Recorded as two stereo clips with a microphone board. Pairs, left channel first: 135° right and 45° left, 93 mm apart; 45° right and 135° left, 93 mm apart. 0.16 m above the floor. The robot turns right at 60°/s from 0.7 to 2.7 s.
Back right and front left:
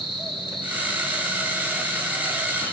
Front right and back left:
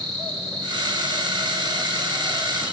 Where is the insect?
Straight behind, 4 m; by 2.8 s 60° right, 4 m.